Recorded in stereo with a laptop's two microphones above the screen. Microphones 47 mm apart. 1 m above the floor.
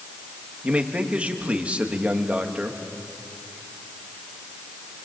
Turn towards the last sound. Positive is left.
turn(degrees=-30)  # may be behind; listen again after turning